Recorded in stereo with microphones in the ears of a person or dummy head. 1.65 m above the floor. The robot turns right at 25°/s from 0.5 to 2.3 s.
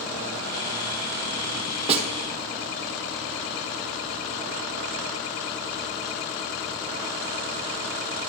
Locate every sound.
1.9 s a snare drum: 35° right (ahead or behind), 0.9 m; by 2.1 s 30° right (ahead or behind), 0.9 m